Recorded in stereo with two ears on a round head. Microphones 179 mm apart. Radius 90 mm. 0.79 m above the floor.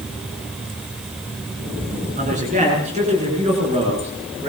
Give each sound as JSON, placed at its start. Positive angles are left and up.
{"t": 2.2, "sound": "a man speaking", "side_deg": -40, "distance_m": 8.5}